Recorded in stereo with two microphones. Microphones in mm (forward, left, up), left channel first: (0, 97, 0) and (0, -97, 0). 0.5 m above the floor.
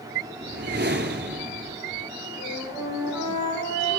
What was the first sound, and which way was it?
A whoosh, 60° right (ahead or behind).